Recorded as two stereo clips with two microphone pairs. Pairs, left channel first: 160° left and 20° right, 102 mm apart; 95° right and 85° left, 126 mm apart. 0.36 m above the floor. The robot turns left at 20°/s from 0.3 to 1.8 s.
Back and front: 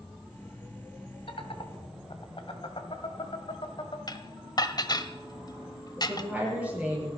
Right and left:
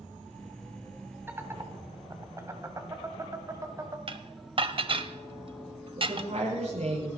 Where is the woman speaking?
55° left, 8.5 m.